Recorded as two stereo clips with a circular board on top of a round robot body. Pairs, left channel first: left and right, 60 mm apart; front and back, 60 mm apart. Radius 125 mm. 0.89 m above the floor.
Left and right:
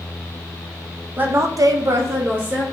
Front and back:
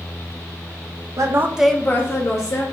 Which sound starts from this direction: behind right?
A woman speaking, at 1.2 s.